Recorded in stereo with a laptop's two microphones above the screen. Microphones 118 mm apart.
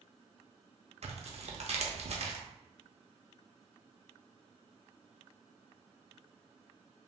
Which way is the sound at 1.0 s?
65° right (ahead or behind).